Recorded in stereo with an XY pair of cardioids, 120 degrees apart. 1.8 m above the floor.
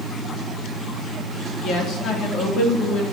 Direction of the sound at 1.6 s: 60° left.